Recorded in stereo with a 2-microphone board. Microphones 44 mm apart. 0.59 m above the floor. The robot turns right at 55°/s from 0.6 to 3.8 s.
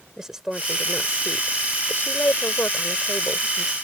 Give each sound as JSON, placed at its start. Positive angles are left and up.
{"t": 0.2, "sound": "a woman speaking", "side_deg": -10}